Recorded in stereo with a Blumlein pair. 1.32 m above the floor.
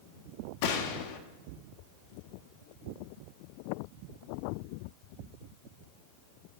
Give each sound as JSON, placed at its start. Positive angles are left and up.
{"t": 0.6, "sound": "a gunshot", "azimuth_deg": 45, "distance_m": 1.4}